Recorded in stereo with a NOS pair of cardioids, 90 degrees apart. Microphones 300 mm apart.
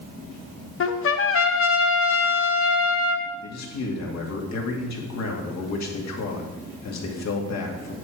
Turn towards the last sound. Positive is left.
turn(degrees=60)